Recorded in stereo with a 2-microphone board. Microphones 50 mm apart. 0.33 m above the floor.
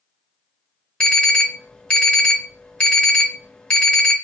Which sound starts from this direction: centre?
An alarm, at 1.0 s.